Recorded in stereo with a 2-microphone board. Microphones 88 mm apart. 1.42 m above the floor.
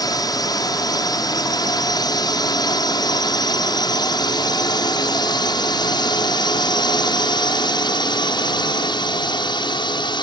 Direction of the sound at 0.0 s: 50° left (ahead or behind).